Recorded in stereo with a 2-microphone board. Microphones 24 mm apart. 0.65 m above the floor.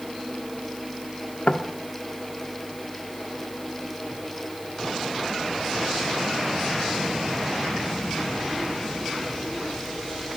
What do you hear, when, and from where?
1.5 s knocking: 55° left (ahead or behind), 1.0 m